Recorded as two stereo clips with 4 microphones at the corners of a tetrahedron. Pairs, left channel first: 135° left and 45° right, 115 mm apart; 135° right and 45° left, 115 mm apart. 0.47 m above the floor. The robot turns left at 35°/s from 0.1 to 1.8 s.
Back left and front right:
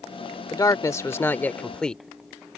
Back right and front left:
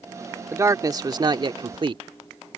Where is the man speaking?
100° left; by 2.0 s 55° left.